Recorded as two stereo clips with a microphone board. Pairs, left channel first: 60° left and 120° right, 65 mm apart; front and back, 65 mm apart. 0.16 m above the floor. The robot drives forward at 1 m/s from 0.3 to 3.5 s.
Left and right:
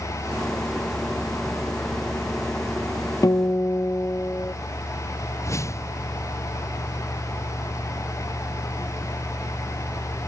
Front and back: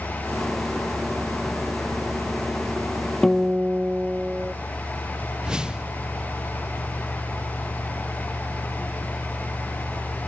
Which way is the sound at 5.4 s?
100° left.